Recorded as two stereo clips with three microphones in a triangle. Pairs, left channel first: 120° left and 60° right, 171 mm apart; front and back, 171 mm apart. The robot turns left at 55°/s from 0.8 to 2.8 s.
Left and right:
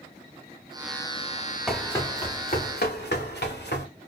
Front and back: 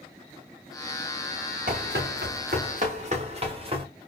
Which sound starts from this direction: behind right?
Running footsteps, at 1.7 s.